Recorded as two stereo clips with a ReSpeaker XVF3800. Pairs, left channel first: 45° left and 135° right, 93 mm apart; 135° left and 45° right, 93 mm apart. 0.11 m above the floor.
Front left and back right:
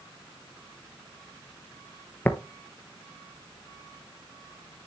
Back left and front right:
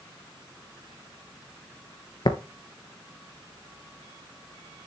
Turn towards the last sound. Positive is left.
turn(degrees=115)